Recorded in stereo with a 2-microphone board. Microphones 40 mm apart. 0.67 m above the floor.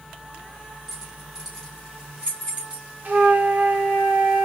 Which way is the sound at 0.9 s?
5° right (ahead or behind).